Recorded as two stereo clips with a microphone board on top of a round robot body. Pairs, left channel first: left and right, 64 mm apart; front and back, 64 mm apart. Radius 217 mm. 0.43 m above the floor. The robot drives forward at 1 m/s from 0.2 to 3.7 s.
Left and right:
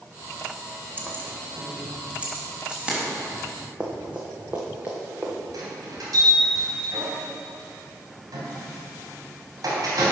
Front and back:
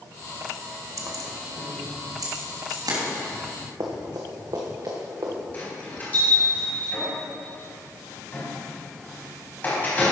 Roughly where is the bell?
Ahead right.